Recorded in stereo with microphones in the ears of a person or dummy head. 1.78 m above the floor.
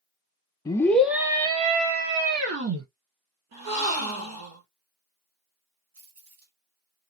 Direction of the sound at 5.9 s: 45° right (ahead or behind).